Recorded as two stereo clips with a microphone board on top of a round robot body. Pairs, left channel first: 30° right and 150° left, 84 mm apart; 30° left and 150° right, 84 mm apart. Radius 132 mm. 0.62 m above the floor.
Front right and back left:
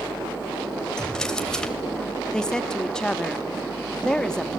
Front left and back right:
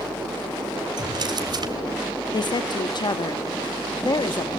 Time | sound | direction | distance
1.0 | a drawer | 115° right | 1.9 m
2.3 | a woman speaking | 50° left | 1.1 m